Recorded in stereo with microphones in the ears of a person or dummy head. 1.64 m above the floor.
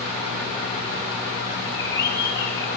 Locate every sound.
1.6 s a bird: 25° left (ahead or behind), 5.5 m